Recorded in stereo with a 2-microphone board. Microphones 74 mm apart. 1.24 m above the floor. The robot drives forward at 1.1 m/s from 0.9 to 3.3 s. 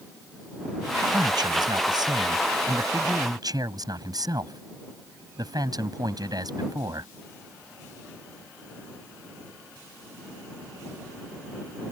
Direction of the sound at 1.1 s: 90° right.